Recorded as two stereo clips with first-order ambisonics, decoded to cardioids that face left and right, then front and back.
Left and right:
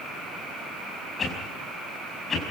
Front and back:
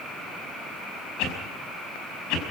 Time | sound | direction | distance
1.2 | a whoosh | 20° left | 5.5 m